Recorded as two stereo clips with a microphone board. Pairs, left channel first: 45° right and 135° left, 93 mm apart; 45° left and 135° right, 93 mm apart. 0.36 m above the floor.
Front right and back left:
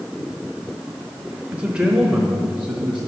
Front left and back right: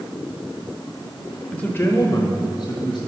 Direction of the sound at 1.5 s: 100° left.